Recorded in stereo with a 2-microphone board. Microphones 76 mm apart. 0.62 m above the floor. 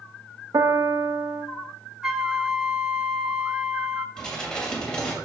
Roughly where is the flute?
Centre.